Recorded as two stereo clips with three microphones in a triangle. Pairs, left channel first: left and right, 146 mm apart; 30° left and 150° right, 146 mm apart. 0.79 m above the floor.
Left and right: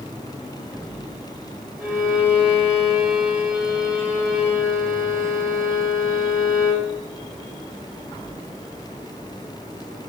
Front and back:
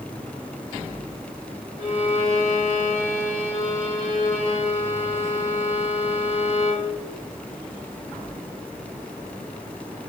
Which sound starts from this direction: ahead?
A violin, at 1.8 s.